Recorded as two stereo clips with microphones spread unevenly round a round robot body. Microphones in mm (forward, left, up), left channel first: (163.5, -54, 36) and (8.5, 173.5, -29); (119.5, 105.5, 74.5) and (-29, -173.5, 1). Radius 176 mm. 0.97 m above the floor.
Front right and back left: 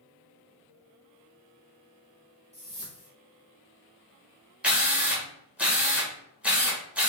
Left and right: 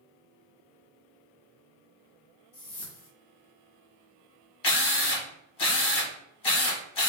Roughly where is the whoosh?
Ahead left.